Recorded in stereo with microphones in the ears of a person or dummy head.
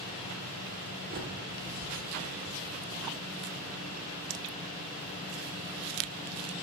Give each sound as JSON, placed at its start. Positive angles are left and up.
{"t": 1.1, "sound": "a bird", "side_deg": -40, "distance_m": 1.9}